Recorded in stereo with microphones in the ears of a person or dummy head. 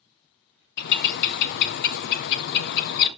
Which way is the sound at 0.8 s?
60° left (ahead or behind).